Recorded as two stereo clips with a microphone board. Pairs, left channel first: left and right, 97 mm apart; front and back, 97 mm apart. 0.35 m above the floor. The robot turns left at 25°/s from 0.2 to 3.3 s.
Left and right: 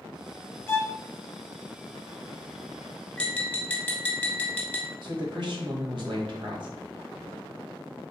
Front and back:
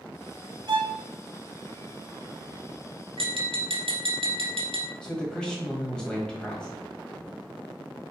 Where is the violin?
150° left, 1.0 m; by 1.0 s 145° left, 1.0 m.